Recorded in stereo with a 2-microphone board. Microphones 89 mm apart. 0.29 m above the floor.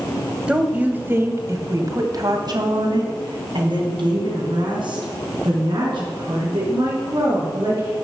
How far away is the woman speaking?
About 1.4 m.